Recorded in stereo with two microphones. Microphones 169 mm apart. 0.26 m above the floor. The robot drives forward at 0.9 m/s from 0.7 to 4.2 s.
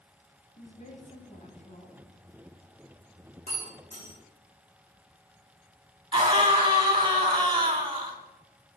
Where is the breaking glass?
45° left (ahead or behind), 7 m; by 4.2 s 40° left (ahead or behind), 7.5 m.